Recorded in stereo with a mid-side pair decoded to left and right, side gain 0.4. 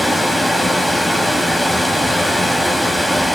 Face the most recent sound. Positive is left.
turn(degrees=0)